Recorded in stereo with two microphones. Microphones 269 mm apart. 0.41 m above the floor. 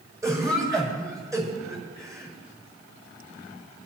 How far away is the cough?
About 5.5 m.